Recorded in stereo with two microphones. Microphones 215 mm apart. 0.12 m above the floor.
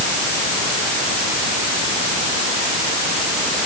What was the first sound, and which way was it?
Only background noise.